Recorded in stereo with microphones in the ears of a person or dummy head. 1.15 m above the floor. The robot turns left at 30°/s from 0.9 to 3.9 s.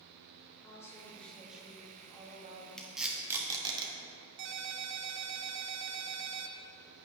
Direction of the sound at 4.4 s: 60° right (ahead or behind).